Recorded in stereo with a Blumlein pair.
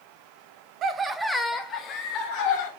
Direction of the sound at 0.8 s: 35° right.